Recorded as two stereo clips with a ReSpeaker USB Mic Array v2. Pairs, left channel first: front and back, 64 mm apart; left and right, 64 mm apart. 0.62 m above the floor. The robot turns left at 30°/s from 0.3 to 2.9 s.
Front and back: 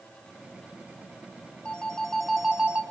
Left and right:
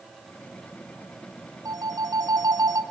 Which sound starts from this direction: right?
A phone ringing, at 1.6 s.